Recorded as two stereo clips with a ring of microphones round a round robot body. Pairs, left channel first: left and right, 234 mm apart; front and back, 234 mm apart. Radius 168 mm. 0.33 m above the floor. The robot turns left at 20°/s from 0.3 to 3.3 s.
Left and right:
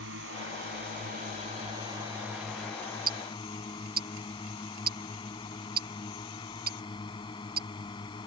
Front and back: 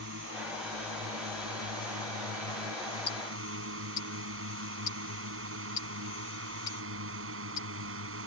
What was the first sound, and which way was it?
A drone, 135° right.